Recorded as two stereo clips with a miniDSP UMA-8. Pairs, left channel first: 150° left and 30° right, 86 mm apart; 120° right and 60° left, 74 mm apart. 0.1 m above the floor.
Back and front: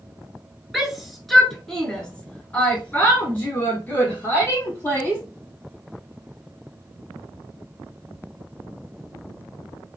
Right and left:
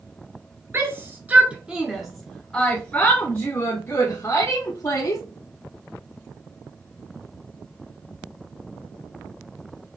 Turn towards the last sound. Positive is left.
turn(degrees=-150)